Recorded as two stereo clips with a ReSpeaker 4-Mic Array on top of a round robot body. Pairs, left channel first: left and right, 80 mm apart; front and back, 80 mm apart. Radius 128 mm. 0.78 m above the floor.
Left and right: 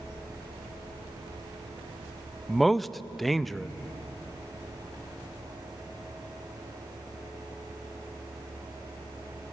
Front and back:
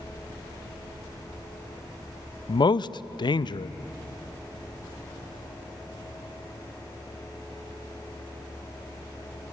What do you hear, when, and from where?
2.5 s a man speaking: 5° left, 0.6 m